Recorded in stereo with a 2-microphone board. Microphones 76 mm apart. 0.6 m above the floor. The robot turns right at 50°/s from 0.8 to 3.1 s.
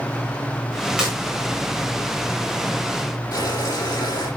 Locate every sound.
1.0 s breaking glass: 10° right (ahead or behind), 7 m; by 1.1 s 5° right (ahead or behind), 7 m
3.3 s boiling: 60° left (ahead or behind), 9 m